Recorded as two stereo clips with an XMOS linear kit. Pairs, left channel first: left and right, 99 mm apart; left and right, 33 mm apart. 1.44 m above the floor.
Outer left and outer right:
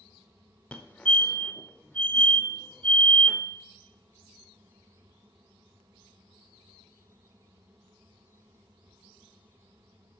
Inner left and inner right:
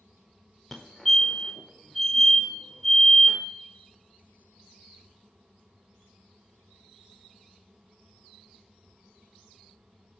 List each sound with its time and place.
0.7 s a fire alarm: 10° left (ahead or behind), 0.7 m